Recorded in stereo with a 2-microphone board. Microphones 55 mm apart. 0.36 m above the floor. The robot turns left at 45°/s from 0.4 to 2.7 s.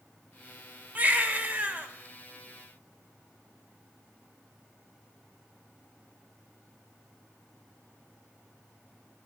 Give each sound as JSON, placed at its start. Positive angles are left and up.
{"t": 0.9, "sound": "a baby crying", "azimuth_deg": -65, "distance_m": 0.9}